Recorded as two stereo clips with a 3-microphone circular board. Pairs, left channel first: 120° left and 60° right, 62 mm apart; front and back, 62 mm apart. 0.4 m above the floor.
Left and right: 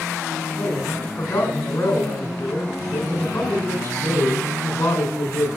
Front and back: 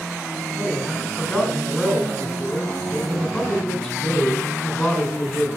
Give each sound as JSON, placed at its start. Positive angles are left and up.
{"t": 0.6, "sound": "a man speaking", "azimuth_deg": 85, "distance_m": 3.0}